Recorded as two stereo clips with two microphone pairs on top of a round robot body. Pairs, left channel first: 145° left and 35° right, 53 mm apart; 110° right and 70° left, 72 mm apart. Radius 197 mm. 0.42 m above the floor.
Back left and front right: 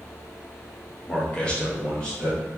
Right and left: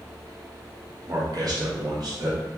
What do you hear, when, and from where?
1.1 s a man speaking: 85° left, 1.5 m; by 2.4 s 70° left, 2 m